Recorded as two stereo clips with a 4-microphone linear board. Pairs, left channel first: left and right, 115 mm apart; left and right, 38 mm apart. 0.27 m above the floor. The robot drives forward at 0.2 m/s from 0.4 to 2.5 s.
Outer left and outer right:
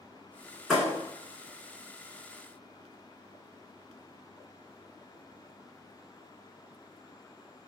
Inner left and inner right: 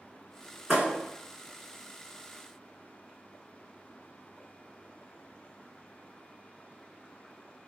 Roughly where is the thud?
Centre.